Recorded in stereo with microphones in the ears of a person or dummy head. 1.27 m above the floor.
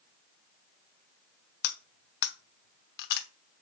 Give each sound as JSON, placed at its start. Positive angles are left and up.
{"t": 1.6, "sound": "cutlery clinking", "side_deg": 60, "distance_m": 0.9}